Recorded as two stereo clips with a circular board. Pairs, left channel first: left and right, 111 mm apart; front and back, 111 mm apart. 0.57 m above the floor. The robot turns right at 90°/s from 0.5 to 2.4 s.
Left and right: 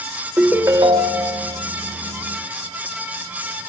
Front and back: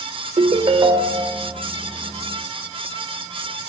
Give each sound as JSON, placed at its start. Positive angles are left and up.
{"t": 0.4, "sound": "a ringtone", "azimuth_deg": -165, "distance_m": 0.9}